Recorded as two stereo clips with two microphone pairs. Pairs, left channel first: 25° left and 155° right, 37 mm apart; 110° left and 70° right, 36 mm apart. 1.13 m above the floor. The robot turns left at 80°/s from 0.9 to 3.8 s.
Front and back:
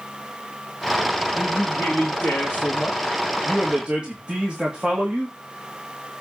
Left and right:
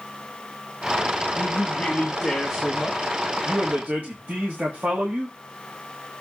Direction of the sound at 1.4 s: 100° left.